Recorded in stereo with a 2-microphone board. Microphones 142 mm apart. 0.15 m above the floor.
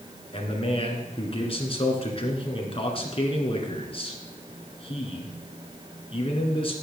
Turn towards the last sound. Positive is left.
turn(degrees=40)  # may be behind; listen again after turning